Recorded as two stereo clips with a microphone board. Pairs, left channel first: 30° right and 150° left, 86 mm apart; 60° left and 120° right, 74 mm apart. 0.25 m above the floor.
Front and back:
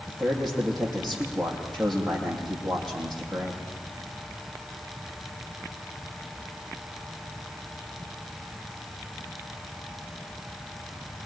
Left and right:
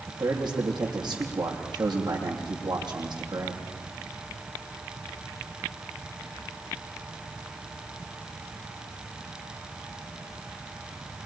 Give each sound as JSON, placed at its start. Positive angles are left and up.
{"t": 0.1, "sound": "a man speaking", "azimuth_deg": -115, "distance_m": 8.5}